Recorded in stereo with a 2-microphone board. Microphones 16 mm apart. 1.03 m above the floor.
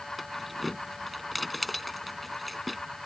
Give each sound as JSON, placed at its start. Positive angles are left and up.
{"t": 0.2, "sound": "keys jangling", "side_deg": 5}